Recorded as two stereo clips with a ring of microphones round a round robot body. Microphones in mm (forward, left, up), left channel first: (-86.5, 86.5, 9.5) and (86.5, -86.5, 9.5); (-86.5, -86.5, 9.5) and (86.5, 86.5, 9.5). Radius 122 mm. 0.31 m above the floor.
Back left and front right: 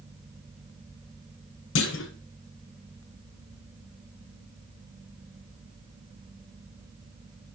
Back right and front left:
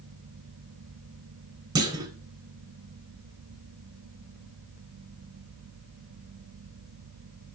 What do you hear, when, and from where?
1.8 s a clunk: 115° left, 0.5 m